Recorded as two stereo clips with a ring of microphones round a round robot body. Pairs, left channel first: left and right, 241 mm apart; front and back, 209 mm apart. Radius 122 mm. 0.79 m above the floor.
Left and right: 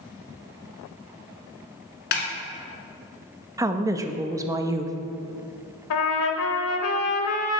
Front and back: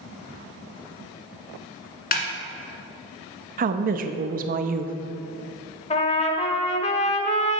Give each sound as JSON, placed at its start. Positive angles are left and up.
{"t": 2.1, "sound": "a snare drum", "azimuth_deg": 45, "distance_m": 1.4}
{"t": 3.6, "sound": "a woman speaking", "azimuth_deg": -160, "distance_m": 0.5}
{"t": 5.9, "sound": "a trumpet", "azimuth_deg": 60, "distance_m": 0.9}